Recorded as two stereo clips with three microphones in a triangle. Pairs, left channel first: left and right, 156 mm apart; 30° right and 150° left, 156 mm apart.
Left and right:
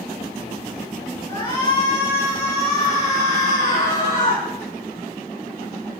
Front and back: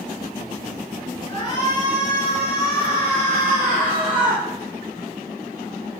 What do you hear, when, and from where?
1.3 s a shout: 30° left, 4.5 m; by 4.4 s 50° left, 5.5 m